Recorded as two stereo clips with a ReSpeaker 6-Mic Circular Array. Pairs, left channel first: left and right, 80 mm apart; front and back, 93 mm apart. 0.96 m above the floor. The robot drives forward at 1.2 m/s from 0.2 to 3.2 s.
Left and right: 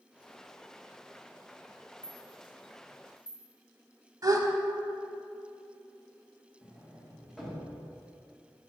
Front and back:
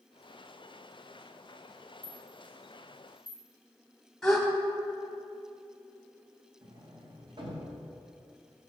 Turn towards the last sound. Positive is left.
turn(degrees=180)